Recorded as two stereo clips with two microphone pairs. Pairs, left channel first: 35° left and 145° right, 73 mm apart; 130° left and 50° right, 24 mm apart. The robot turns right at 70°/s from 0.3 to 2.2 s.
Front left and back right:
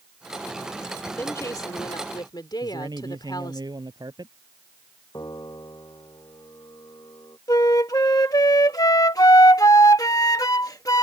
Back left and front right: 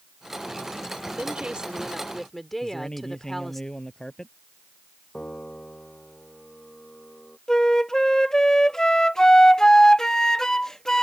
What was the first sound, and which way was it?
A woman speaking, 25° right.